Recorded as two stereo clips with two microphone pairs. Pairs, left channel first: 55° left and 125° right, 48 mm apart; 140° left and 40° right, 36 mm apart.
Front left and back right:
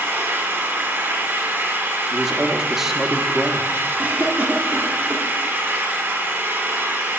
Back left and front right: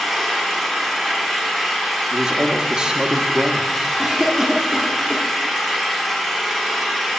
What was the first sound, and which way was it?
An engine running, 130° right.